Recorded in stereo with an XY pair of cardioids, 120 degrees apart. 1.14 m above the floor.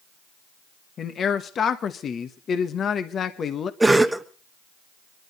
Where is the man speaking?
45° left, 1.1 m.